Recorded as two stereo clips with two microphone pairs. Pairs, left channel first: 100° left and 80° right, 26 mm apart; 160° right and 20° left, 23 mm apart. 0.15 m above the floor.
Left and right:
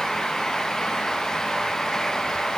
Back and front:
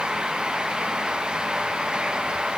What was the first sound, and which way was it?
Only background noise.